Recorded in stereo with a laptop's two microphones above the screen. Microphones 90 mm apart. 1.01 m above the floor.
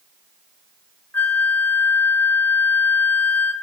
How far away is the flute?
About 1.0 m.